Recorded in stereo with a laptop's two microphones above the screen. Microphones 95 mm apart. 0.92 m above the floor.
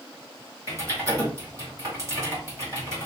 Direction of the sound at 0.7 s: 35° right (ahead or behind).